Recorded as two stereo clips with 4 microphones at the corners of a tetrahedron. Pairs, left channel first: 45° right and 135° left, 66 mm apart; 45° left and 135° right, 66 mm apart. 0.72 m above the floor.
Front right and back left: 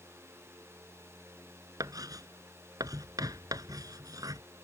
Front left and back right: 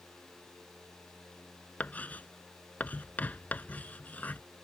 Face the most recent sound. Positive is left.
turn(degrees=110)